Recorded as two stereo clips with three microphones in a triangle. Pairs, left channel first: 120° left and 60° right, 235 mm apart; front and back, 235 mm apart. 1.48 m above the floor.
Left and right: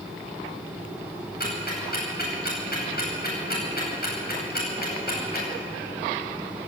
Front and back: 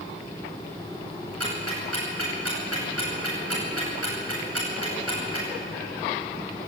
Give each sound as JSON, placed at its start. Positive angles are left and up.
{"t": 1.4, "sound": "ticking", "azimuth_deg": 170, "distance_m": 10.0}